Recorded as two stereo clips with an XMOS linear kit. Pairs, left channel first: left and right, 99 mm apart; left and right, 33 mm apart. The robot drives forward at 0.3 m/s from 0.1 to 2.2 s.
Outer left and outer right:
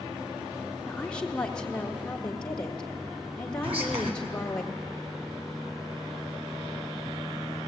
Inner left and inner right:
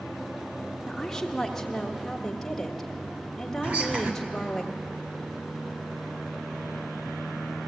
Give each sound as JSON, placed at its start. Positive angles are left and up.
{"t": 0.9, "sound": "a woman speaking", "side_deg": 10, "distance_m": 1.2}
{"t": 3.6, "sound": "whispering", "side_deg": -75, "distance_m": 3.0}